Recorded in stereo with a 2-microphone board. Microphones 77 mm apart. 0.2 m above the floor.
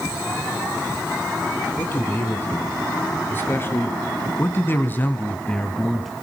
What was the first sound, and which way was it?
A man speaking, 25° left (ahead or behind).